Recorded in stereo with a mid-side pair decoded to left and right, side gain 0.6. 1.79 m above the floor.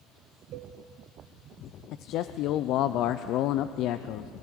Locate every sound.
0.5 s a cowbell: 65° right, 1.8 m
1.9 s a man speaking: 65° left, 0.7 m